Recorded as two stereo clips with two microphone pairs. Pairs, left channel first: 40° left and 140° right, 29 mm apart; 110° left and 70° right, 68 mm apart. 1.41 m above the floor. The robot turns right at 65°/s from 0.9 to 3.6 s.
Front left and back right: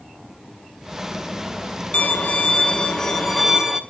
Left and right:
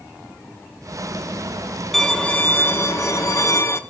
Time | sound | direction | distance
1.9 | a violin | 25° left | 1.2 m